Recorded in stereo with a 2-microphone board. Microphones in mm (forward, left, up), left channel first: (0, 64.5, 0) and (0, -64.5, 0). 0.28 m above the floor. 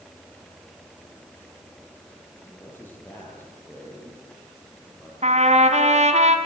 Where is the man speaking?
15° left (ahead or behind), 7.5 m.